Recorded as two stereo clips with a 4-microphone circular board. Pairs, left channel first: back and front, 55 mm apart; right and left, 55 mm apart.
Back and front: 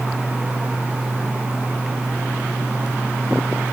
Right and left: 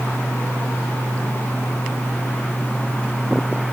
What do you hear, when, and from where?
Only background noise.